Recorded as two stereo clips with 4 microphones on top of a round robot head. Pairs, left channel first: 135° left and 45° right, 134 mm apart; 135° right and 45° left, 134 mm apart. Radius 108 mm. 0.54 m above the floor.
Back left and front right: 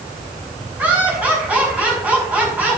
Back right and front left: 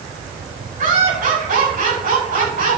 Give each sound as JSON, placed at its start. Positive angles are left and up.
{"t": 0.8, "sound": "laughter", "azimuth_deg": 35, "distance_m": 7.0}